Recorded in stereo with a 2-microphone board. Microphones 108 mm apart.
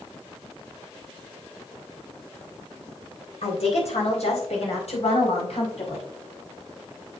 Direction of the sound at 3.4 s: 75° left (ahead or behind).